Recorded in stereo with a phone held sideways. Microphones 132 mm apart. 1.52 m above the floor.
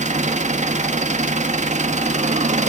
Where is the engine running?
60° right (ahead or behind), 1.4 m.